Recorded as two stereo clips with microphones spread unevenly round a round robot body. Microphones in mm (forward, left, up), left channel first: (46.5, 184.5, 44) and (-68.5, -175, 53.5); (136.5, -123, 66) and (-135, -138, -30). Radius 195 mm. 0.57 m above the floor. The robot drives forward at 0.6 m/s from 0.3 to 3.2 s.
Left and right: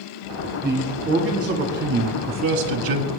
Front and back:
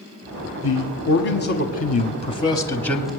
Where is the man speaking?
30° right, 1.6 m; by 3.1 s 105° right, 1.0 m.